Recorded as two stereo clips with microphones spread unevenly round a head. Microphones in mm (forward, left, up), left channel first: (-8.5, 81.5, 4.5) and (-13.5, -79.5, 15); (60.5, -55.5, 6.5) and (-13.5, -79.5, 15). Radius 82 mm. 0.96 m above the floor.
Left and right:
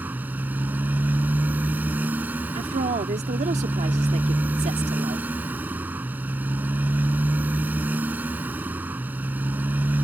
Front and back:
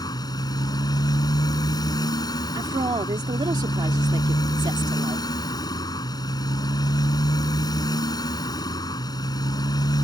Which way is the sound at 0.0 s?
15° right.